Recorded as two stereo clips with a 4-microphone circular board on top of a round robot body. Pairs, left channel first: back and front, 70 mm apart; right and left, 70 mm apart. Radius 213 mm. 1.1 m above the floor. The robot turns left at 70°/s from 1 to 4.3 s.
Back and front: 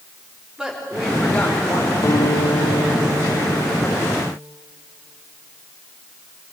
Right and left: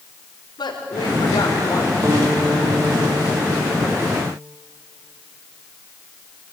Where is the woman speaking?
80° right, 5 m; by 1.9 s 145° right, 5 m.